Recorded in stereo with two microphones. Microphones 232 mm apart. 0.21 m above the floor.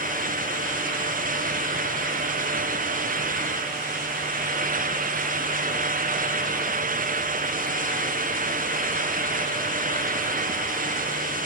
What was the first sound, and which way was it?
Only background noise.